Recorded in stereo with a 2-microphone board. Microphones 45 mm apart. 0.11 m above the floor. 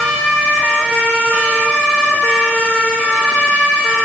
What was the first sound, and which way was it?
Only background noise.